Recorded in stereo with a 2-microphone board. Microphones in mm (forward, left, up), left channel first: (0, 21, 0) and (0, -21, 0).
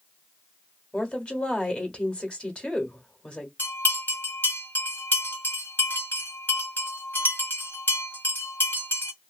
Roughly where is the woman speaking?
Left.